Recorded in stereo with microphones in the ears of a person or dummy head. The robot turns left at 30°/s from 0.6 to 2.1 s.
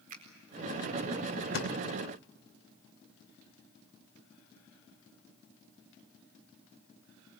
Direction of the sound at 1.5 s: 70° left (ahead or behind).